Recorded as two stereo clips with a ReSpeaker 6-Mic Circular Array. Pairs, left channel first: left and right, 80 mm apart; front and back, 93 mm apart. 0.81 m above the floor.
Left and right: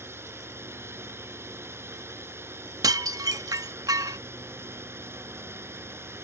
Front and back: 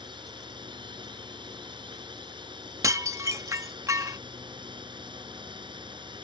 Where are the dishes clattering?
125° right.